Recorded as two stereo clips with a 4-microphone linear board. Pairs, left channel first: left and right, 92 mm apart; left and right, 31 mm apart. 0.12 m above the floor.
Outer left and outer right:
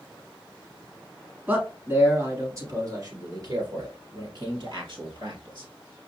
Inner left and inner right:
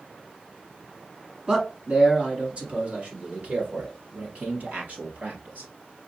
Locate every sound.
1.5 s a man speaking: 20° right (ahead or behind), 1.4 m; by 5.7 s 65° right (ahead or behind), 3 m